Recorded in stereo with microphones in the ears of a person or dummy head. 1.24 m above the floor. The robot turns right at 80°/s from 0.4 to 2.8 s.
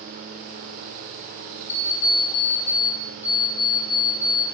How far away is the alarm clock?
About 0.7 m.